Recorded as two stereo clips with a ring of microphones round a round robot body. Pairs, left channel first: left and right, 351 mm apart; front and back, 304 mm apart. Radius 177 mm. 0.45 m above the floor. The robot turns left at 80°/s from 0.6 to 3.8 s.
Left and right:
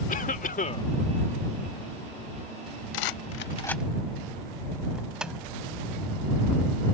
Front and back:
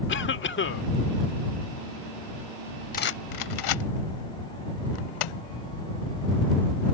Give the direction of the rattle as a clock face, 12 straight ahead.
10 o'clock.